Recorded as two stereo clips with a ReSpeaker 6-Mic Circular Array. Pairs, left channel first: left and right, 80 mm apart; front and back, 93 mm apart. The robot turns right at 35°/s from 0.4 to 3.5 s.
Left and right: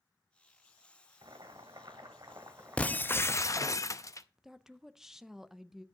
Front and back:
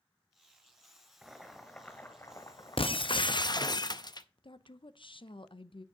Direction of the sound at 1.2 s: 95° right.